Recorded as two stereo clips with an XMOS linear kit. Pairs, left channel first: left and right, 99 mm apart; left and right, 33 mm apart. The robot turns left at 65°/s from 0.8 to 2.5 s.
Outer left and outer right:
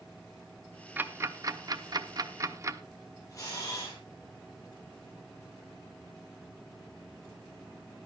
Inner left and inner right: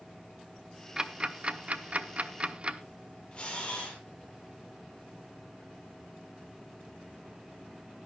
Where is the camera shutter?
35° left (ahead or behind), 9.5 m.